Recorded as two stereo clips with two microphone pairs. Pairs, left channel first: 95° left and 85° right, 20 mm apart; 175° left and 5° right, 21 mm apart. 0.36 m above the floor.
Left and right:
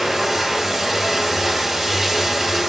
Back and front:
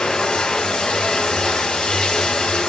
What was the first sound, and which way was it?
Running water, 160° right.